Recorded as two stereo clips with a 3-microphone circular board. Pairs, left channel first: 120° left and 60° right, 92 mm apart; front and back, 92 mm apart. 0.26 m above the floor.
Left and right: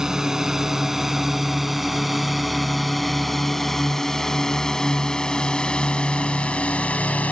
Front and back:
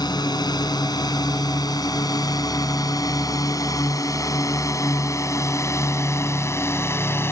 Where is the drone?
20° left; by 7.3 s 50° left.